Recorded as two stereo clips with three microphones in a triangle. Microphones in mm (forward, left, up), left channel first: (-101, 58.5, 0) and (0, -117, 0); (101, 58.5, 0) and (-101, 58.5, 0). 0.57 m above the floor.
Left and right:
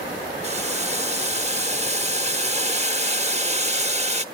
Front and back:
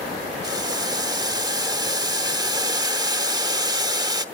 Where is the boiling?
115° right, 1.0 m.